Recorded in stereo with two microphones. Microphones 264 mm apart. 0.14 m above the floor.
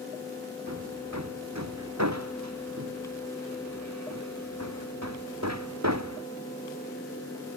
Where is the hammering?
85° right.